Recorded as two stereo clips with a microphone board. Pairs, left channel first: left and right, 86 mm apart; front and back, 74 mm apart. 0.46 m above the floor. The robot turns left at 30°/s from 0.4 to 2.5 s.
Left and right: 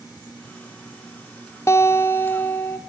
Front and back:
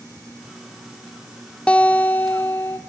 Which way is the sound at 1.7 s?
65° left.